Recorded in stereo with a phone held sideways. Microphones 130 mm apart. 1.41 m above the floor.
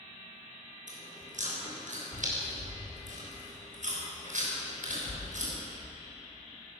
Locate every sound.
0.9 s chewing: 80° right, 6.5 m